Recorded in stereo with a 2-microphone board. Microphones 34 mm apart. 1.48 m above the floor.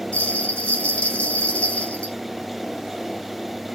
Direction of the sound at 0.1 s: 40° left (ahead or behind).